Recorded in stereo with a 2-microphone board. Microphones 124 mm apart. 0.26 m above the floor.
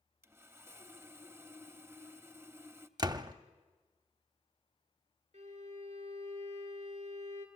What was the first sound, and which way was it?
Sawing, 20° right (ahead or behind).